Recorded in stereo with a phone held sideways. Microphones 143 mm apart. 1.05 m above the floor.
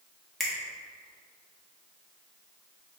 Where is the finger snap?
Centre (ahead or behind), 0.9 m.